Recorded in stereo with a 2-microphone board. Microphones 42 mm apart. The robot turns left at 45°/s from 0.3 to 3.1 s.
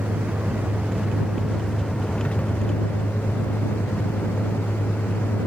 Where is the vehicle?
125° right; by 5.5 s 110° left.